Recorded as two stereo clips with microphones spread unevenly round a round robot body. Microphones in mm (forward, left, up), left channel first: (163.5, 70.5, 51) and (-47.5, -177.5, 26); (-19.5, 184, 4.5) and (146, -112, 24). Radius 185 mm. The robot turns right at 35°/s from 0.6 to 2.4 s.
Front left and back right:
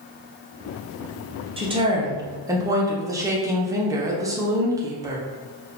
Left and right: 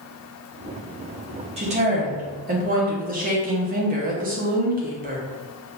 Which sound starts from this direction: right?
A woman speaking, at 1.6 s.